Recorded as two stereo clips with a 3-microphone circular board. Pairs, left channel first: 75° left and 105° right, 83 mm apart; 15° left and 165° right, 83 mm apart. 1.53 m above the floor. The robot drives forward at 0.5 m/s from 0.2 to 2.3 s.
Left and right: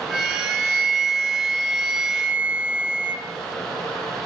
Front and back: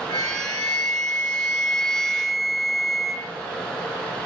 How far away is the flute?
About 1.7 m.